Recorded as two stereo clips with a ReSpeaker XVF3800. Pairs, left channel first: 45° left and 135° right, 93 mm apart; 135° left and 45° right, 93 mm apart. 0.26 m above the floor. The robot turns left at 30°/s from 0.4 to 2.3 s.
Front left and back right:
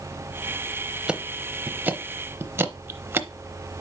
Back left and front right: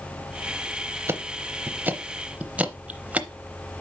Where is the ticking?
65° right, 0.7 m; by 3.3 s 100° right, 0.7 m.